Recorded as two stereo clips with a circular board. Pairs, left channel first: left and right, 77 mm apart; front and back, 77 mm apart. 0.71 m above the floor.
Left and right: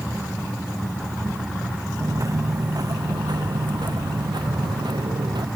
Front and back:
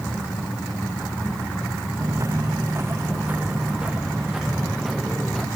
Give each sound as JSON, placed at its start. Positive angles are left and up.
{"t": 2.0, "sound": "footsteps", "azimuth_deg": -135}